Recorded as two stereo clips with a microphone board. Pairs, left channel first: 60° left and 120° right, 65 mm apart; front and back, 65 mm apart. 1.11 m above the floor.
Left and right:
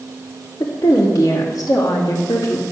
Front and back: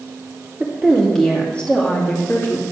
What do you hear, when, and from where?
0.6 s a woman speaking: 95° left, 2.5 m; by 2.7 s 50° left, 2.5 m